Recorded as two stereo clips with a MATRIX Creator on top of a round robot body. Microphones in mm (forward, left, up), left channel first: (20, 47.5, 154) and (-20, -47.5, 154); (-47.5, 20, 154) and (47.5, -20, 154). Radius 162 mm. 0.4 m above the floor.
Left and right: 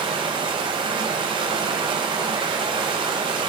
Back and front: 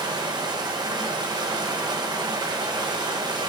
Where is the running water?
70° right, 1.8 m.